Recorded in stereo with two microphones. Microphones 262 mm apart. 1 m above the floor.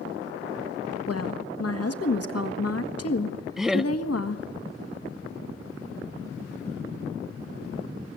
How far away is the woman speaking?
About 1.5 m.